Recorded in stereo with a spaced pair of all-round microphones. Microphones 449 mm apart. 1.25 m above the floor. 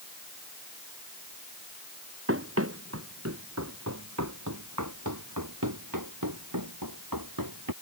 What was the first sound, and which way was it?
Running footsteps, 30° right (ahead or behind).